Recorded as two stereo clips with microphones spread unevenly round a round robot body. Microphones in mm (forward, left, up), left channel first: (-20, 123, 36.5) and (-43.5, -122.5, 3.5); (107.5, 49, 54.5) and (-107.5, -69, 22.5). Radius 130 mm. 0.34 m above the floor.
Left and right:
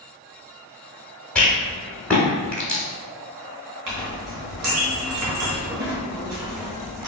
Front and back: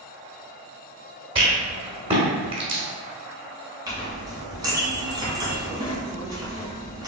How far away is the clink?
About 1.6 m.